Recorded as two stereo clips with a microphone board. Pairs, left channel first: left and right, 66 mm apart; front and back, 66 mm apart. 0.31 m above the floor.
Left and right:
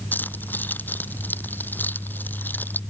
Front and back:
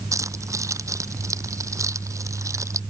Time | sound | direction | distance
0.1 | keys jangling | 150° left | ?